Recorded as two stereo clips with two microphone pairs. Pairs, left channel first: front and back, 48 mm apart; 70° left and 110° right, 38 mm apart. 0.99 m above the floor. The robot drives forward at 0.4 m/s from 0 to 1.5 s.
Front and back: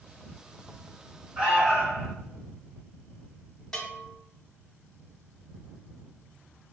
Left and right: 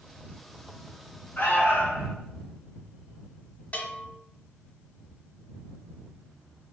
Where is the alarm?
110° left, 0.8 m.